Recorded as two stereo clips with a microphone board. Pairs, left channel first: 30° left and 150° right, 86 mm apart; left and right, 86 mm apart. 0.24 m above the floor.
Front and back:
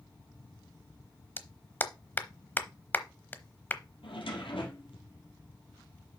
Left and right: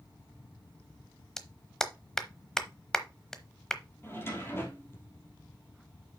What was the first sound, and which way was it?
A clap, 20° left.